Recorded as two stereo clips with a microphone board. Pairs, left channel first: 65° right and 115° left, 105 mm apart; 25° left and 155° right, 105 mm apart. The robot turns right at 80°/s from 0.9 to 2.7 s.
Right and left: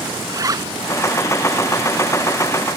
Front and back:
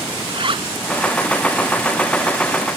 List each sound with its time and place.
0.3 s a zipper: 165° left